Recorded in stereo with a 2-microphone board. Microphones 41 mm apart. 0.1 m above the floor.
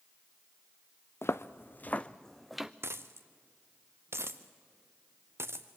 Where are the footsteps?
70° left (ahead or behind), 0.7 m; by 2.7 s 10° right (ahead or behind), 0.7 m.